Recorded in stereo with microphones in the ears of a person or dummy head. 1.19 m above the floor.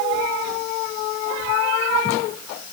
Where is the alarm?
No alarm in this recording.